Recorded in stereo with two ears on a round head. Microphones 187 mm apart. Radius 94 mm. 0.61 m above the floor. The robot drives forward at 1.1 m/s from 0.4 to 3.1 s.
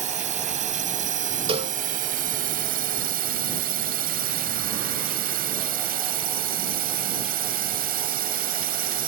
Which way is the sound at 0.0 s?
35° right (ahead or behind).